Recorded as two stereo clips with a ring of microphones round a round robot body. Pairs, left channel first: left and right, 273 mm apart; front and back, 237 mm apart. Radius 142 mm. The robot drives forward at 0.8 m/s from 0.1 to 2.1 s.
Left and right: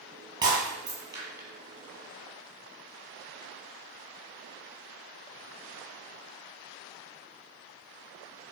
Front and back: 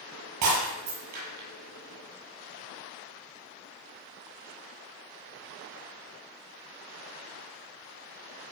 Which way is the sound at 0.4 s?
165° right.